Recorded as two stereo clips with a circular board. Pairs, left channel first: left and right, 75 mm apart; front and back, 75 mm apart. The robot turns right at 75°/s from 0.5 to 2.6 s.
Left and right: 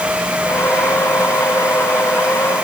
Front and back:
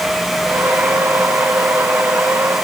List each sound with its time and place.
Only background noise.